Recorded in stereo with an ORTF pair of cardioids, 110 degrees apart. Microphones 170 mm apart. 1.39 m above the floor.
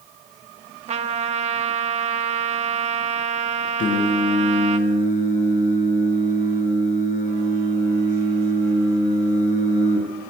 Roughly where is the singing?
Ahead left.